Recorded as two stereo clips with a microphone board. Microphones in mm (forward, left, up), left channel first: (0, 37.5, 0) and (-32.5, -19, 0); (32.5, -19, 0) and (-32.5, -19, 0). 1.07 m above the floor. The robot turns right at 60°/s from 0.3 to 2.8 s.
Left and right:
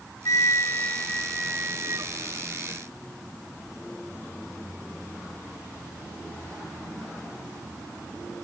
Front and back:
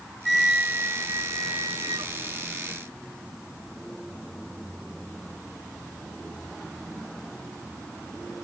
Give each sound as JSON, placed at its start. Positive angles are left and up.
{"t": 0.2, "sound": "a flute", "azimuth_deg": 90}